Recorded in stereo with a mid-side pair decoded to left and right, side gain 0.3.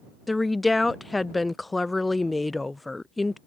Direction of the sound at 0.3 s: 25° left.